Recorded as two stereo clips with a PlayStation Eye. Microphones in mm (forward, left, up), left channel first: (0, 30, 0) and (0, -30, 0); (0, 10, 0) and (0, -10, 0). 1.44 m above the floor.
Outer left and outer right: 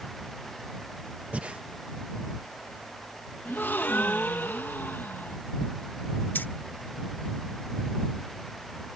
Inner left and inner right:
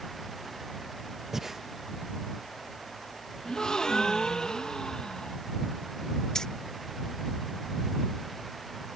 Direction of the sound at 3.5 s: 35° left (ahead or behind).